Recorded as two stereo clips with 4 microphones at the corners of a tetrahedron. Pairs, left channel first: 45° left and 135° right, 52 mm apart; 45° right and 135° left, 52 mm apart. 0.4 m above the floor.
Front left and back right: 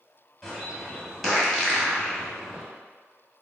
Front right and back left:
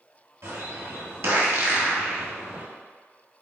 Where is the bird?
130° left, 1.6 m.